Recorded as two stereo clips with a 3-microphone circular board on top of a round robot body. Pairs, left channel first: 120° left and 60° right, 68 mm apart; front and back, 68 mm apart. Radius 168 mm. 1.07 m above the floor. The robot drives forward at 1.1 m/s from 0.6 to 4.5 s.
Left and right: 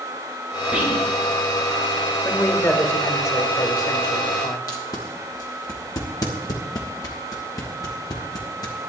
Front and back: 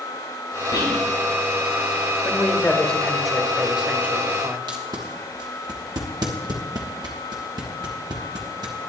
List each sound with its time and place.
0.7 s whispering: 5° left, 5 m; by 1.1 s 10° left, 4.5 m
2.2 s a man speaking: 60° left, 2.5 m; by 4.6 s 125° left, 2.5 m
4.7 s tape being pulled: 155° left, 1.3 m